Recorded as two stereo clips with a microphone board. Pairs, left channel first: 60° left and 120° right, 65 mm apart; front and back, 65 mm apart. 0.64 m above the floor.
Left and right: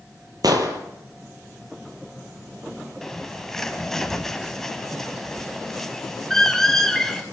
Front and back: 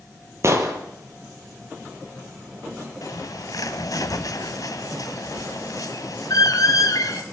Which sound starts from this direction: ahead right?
A bird, at 3.0 s.